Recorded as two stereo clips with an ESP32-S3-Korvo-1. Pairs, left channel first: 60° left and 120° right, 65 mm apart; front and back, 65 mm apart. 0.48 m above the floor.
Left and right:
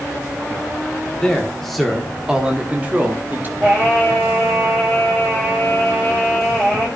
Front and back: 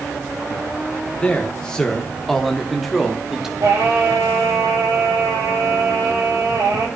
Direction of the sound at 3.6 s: 170° left.